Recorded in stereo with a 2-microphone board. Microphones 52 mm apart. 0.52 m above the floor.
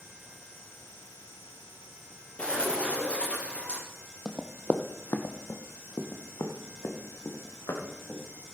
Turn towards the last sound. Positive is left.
turn(degrees=80)